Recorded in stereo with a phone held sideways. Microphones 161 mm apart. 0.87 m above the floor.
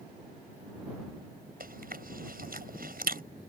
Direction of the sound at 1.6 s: 70° right (ahead or behind).